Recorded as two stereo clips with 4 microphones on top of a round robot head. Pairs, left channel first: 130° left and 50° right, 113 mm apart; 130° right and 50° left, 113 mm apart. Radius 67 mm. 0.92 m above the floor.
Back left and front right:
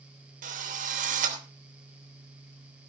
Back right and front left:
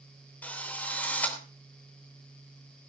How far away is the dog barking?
No dog barking in this recording.